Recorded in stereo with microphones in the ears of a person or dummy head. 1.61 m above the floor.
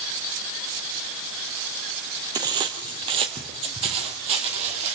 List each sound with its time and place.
2.4 s footsteps: 25° right (ahead or behind), 3 m; by 5.0 s 40° right (ahead or behind), 4 m